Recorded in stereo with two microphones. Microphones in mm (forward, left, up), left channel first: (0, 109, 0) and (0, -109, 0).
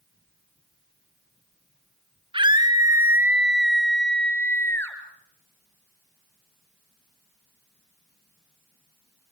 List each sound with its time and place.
2.3 s a scream: 25° right (ahead or behind), 1.8 m; by 5.0 s 10° left (ahead or behind), 3 m